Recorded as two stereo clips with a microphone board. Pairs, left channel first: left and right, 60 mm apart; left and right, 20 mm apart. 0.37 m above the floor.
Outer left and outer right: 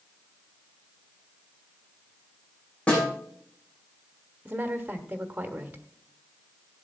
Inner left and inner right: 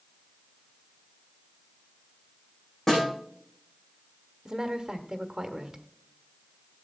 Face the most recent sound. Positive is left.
turn(degrees=-25)  # may be behind; listen again after turning